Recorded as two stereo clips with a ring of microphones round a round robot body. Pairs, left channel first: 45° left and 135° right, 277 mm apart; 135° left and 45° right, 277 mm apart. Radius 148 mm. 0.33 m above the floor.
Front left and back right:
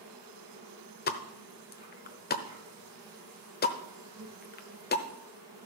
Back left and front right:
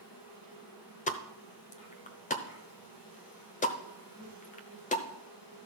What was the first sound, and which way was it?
An insect, 145° left.